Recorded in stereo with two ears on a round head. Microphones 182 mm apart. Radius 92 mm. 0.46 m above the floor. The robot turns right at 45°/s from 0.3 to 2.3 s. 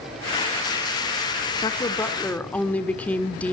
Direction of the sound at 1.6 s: 135° left.